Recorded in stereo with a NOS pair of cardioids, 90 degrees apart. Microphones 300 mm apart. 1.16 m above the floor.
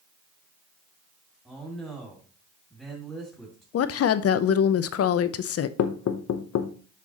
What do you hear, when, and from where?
1.4 s a man speaking: straight ahead, 2.5 m
3.7 s a woman speaking: 55° left, 0.7 m
5.8 s knocking: 60° left, 1.0 m